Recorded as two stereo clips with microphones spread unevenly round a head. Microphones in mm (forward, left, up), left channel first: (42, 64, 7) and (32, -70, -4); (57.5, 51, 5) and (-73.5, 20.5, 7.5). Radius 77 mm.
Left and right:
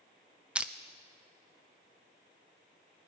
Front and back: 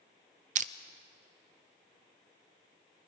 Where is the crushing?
170° right, 0.5 m.